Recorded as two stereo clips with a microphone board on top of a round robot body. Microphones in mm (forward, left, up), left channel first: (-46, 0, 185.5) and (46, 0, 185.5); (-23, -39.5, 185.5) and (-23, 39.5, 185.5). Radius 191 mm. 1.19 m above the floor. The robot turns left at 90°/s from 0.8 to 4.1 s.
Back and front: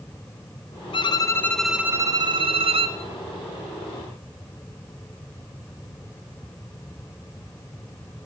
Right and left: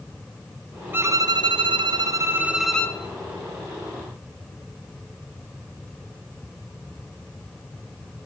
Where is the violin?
155° left, 0.6 m; by 3.0 s 30° right, 0.6 m.